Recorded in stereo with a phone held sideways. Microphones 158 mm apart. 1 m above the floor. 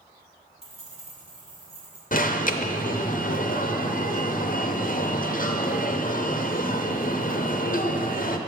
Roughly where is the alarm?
Left.